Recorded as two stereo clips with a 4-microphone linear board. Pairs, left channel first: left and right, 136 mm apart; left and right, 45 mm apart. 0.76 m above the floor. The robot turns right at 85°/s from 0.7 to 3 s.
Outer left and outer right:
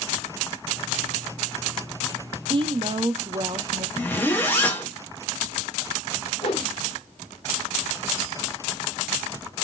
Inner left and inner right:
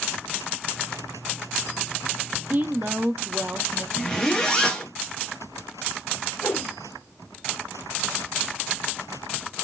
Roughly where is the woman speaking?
Right.